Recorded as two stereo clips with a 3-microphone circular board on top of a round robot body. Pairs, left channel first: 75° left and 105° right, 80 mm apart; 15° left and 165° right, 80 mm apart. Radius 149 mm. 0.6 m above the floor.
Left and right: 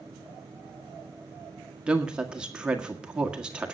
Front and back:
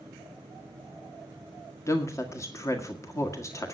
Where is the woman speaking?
30° right, 1.8 m.